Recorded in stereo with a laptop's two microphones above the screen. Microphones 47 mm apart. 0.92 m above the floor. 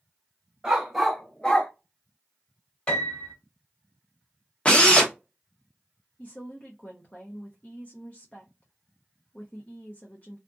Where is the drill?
25° left (ahead or behind), 0.6 m.